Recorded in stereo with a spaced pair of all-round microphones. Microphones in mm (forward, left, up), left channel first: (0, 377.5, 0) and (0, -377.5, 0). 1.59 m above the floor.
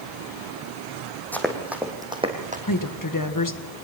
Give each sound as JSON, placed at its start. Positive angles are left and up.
{"t": 1.3, "sound": "running footsteps", "side_deg": 0, "distance_m": 3.0}
{"t": 2.7, "sound": "a woman speaking", "side_deg": 25, "distance_m": 1.5}